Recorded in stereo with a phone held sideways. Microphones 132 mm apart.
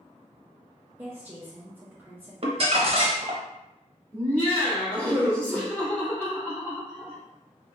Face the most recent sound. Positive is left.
turn(degrees=10)  # may be behind; listen again after turning